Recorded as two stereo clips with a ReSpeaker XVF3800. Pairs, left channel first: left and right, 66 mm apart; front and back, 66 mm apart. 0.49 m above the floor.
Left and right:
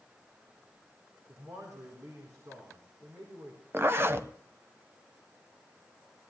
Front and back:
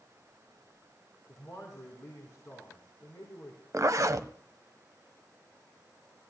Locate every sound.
1.3 s a man speaking: 55° right, 4 m
3.7 s a zipper: 140° right, 0.8 m